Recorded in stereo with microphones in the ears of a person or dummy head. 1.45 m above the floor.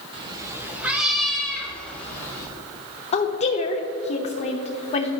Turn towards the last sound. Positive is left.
turn(degrees=35)  # may be behind; listen again after turning